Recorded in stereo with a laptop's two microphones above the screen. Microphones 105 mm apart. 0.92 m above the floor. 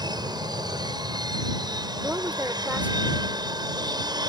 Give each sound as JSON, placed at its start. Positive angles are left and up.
{"t": 0.0, "sound": "an aircraft", "side_deg": -40}
{"t": 2.0, "sound": "a woman speaking", "side_deg": -15}